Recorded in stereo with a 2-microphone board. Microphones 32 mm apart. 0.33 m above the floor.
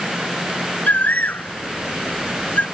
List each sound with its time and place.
0.9 s a bird: 75° left (ahead or behind)